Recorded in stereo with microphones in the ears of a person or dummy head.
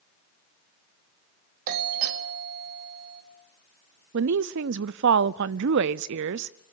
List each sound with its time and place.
1.7 s a doorbell: 45° right (ahead or behind), 1.9 m
4.1 s a woman speaking: 65° right (ahead or behind), 0.6 m